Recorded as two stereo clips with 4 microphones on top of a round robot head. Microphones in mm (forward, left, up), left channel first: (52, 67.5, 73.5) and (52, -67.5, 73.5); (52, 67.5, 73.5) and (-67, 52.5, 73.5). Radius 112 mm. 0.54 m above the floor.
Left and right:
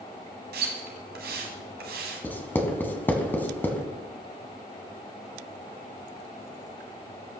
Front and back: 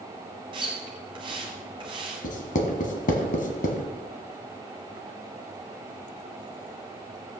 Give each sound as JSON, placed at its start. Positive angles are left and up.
{"t": 0.5, "sound": "a splash", "azimuth_deg": -110, "distance_m": 1.0}
{"t": 2.2, "sound": "writing", "azimuth_deg": 15, "distance_m": 1.6}